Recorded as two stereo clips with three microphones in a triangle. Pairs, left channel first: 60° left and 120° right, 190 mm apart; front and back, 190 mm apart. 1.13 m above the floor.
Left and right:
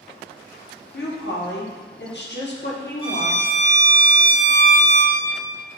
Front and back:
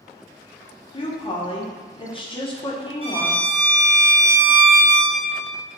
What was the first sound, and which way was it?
A woman speaking, 60° left.